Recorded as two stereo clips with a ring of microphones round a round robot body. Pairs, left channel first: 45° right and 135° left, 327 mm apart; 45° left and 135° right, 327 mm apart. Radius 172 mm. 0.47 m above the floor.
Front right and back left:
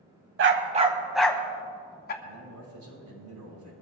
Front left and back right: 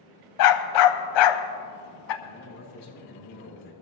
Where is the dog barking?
80° left, 0.9 m; by 2.1 s 20° left, 1.3 m.